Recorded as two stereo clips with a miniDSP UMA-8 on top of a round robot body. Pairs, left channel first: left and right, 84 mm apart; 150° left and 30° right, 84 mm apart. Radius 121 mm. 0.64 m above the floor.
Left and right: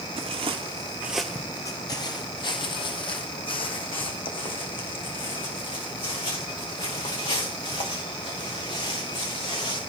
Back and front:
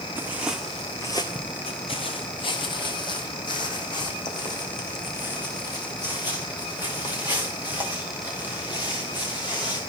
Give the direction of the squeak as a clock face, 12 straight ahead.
I don't hear a squeak.